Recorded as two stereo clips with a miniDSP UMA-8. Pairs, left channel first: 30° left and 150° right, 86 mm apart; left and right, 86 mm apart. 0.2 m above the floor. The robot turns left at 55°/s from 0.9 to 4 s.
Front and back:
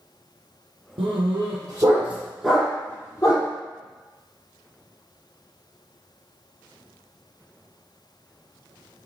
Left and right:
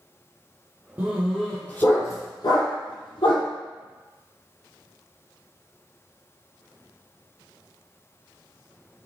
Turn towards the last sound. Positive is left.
turn(degrees=35)